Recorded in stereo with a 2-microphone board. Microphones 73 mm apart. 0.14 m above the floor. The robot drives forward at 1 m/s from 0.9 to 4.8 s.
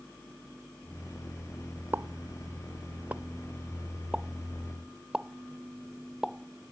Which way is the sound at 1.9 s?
30° right (ahead or behind).